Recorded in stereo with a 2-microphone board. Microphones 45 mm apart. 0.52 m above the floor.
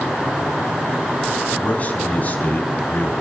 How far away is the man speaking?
About 4.5 m.